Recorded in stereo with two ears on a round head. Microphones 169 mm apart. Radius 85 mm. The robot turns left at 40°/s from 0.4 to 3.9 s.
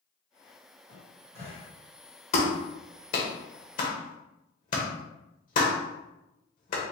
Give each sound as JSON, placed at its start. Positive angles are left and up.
{"t": 0.9, "sound": "a cupboard door", "side_deg": 25, "distance_m": 1.9}
{"t": 2.3, "sound": "a clap", "side_deg": 35, "distance_m": 1.3}